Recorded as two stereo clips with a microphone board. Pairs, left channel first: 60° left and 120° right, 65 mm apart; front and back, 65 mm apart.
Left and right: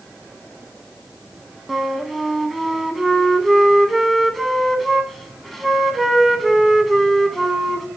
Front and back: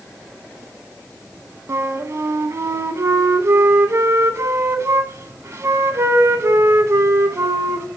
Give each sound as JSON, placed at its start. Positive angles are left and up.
{"t": 1.7, "sound": "a flute", "azimuth_deg": 150, "distance_m": 0.6}